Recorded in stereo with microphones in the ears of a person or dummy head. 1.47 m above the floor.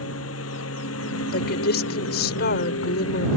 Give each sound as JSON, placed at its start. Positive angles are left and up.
{"t": 0.0, "sound": "a lawn mower", "side_deg": 85}
{"t": 1.3, "sound": "a woman speaking", "side_deg": 50}